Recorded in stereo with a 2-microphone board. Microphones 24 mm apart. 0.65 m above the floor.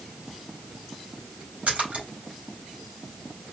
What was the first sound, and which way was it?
A splash, 70° right (ahead or behind).